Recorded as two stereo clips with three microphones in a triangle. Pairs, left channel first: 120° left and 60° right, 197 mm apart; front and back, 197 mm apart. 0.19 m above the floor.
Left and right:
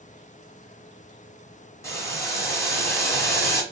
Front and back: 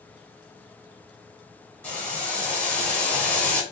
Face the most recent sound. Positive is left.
turn(degrees=70)